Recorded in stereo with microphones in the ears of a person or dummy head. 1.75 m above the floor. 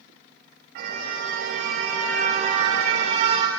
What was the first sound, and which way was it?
A car horn, 70° right (ahead or behind).